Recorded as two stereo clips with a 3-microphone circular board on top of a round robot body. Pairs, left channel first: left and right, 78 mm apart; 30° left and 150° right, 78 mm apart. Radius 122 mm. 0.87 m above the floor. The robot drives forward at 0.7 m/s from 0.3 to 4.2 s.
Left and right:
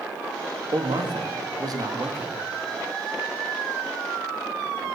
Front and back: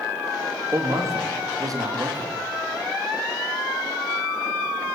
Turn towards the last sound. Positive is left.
turn(degrees=-145)